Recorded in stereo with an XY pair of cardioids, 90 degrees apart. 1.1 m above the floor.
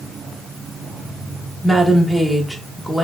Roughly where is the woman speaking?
Ahead.